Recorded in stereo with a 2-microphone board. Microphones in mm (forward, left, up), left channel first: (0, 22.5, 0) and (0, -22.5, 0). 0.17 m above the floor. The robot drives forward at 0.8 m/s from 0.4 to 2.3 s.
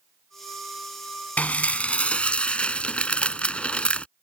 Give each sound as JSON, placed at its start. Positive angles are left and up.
{"t": 1.4, "sound": "dishes clattering", "side_deg": 35}